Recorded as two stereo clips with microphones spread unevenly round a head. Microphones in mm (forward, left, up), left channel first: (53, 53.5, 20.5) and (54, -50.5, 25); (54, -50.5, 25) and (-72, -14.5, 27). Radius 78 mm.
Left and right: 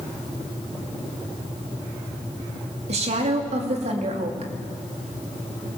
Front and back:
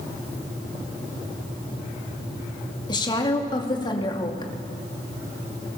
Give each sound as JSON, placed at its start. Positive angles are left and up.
{"t": 2.9, "sound": "a woman speaking", "azimuth_deg": -75, "distance_m": 2.5}